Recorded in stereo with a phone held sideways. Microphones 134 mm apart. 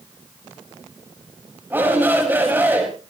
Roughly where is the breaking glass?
No breaking glass in this recording.